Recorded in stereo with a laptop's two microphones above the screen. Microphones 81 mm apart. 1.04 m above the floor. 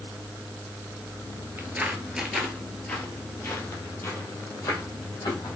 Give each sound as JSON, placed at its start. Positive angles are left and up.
{"t": 1.6, "sound": "footsteps", "side_deg": -25, "distance_m": 1.1}